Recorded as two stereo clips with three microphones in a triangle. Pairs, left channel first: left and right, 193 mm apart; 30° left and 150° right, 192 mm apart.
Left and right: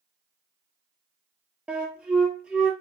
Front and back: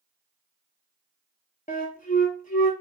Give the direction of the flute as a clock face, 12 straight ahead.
12 o'clock.